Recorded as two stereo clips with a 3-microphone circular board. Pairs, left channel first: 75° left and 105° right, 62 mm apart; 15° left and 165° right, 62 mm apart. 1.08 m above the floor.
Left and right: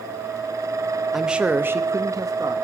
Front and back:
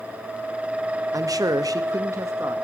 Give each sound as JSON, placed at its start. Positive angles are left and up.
{"t": 1.1, "sound": "a man speaking", "azimuth_deg": 170, "distance_m": 0.9}